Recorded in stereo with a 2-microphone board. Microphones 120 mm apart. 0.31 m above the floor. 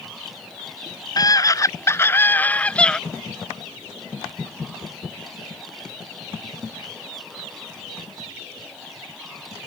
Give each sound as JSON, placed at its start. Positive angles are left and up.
{"t": 1.2, "sound": "a scream", "side_deg": 30}